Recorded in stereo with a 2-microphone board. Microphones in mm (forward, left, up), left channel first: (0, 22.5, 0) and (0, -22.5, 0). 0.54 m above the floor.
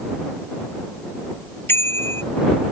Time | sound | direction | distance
1.7 | a bicycle bell | 60° left (ahead or behind) | ?